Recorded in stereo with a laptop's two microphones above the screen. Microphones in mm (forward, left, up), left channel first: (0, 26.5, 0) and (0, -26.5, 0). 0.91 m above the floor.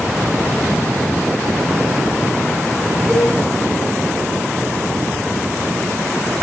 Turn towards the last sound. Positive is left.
turn(degrees=-20)  # may be behind; listen again after turning